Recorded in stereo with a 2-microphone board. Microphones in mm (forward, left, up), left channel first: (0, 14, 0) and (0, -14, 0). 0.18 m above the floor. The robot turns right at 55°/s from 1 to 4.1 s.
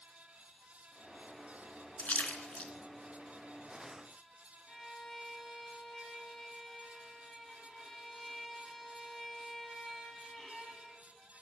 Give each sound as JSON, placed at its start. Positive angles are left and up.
{"t": 2.0, "sound": "a splash", "side_deg": 65, "distance_m": 0.7}
{"t": 4.7, "sound": "a violin", "side_deg": 15, "distance_m": 1.3}